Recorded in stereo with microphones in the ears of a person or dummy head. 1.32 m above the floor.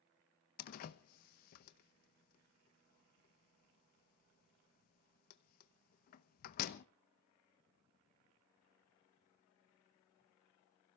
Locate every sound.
0.6 s a door slam: 50° left (ahead or behind), 0.9 m